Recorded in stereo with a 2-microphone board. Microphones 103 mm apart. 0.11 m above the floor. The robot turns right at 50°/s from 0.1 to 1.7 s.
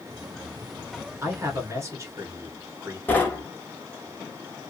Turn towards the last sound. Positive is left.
turn(degrees=20)  # may be behind; listen again after turning